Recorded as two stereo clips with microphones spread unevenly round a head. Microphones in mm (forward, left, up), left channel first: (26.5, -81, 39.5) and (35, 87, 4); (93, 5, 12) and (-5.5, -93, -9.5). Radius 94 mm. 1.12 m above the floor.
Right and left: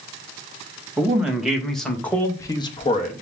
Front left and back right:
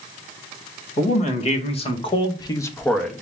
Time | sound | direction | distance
1.0 | a man speaking | 10° left | 1.6 m